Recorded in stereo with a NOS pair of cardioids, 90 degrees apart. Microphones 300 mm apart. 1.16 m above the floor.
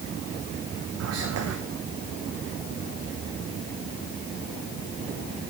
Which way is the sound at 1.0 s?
55° right.